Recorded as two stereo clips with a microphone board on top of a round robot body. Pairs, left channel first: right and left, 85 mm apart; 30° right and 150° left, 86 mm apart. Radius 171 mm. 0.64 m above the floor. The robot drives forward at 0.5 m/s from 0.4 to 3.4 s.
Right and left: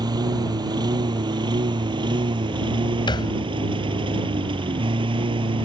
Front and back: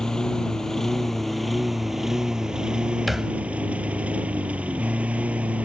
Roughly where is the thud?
Behind right.